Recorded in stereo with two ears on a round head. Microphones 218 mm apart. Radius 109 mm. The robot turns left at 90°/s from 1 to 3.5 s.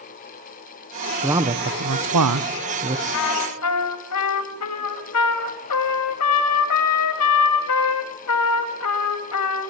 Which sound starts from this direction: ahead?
A man speaking, at 1.2 s.